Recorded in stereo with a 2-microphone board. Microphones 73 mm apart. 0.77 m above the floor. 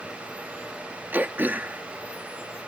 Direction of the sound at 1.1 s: 25° right (ahead or behind).